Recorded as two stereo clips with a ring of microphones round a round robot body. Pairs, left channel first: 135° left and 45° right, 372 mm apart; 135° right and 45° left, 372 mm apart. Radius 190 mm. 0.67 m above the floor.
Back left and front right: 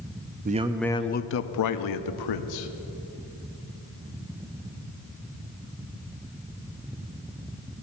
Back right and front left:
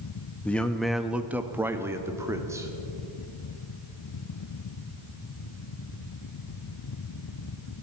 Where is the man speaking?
55° right, 0.5 m; by 2.7 s 125° left, 1.2 m.